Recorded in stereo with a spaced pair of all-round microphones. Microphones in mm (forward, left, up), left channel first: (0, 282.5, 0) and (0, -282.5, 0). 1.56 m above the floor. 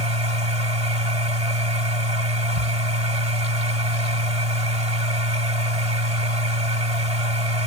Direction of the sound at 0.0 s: 75° right (ahead or behind).